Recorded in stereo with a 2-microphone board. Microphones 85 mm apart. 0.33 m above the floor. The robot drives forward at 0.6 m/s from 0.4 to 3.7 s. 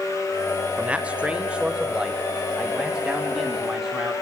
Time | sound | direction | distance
0.8 | a man speaking | 15° right (ahead or behind) | 0.9 m